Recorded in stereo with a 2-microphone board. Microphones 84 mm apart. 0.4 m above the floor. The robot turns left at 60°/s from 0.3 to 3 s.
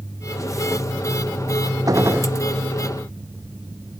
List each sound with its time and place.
1.9 s a gunshot: 40° right (ahead or behind); by 2.3 s 15° right (ahead or behind)